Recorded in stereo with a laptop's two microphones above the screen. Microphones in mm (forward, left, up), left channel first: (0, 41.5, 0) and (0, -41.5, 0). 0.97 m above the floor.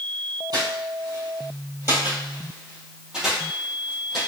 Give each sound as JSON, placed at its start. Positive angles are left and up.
{"t": 0.5, "sound": "footsteps", "side_deg": -55, "distance_m": 1.8}